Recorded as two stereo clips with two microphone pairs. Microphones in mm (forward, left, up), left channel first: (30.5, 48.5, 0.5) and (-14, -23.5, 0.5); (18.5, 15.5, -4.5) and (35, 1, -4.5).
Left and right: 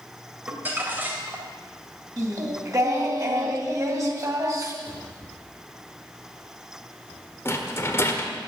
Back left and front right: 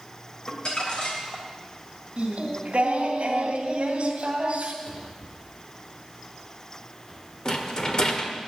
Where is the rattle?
100° left, 1.5 m.